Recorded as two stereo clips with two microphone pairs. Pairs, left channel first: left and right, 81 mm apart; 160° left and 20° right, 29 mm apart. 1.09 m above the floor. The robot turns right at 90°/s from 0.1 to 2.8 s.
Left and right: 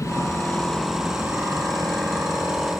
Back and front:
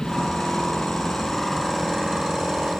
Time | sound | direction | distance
0.0 | an aircraft | 110° left | ?